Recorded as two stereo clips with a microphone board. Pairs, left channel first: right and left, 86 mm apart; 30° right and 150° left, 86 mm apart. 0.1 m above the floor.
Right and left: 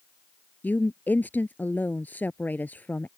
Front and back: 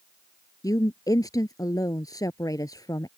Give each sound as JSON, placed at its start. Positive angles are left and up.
{"t": 0.6, "sound": "a woman speaking", "azimuth_deg": -30}